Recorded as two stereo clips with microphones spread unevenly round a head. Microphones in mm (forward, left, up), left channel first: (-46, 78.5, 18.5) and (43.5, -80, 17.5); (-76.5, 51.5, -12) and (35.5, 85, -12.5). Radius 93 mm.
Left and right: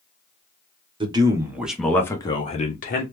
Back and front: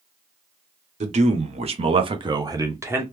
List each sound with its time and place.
1.0 s a man speaking: straight ahead, 1.0 m; by 3.0 s 85° left, 1.0 m